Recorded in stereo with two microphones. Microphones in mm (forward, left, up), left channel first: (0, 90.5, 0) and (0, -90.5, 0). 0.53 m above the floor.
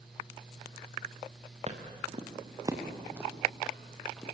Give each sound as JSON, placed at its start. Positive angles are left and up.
{"t": 1.7, "sound": "footsteps", "side_deg": -40, "distance_m": 4.0}